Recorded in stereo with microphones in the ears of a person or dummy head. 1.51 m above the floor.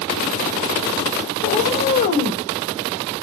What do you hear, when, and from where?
1.4 s a cat meowing: 40° left (ahead or behind), 1.5 m